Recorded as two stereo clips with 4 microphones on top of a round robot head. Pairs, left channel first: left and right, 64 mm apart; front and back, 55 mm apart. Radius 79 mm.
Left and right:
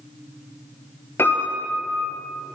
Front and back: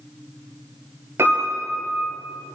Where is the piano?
140° left, 8 m.